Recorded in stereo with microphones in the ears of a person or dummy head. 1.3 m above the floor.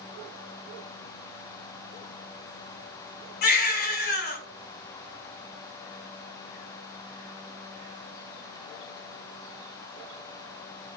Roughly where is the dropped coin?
No dropped coin in this recording.